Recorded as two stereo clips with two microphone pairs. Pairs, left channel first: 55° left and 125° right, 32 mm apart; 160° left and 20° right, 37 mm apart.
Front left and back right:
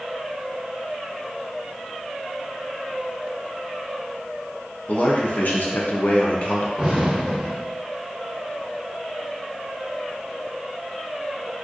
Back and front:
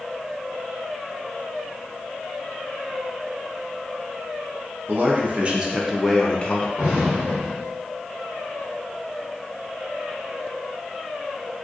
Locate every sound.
4.9 s a man speaking: 20° left, 0.9 m; by 6.7 s 105° left, 0.6 m
6.8 s an explosion: 60° right, 1.3 m